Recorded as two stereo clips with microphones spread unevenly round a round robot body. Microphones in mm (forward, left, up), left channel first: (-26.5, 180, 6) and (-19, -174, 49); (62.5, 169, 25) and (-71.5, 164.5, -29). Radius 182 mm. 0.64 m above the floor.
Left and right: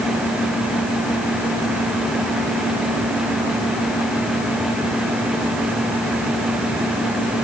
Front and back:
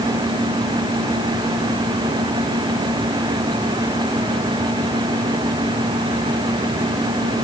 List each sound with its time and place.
Only background noise.